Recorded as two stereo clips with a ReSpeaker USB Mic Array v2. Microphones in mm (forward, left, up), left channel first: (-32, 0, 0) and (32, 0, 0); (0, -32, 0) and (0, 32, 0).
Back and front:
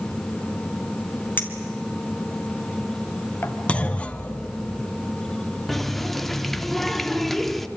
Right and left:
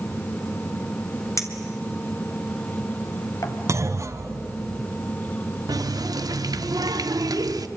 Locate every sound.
1.4 s a clink: 125° right, 2.5 m
3.7 s a clunk: 110° left, 1.2 m
5.7 s a running tap: 95° left, 0.9 m